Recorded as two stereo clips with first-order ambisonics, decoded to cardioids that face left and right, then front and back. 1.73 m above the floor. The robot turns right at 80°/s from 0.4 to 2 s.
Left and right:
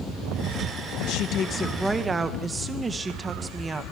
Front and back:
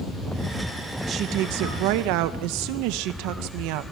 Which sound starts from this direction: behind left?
A woman speaking, at 1.1 s.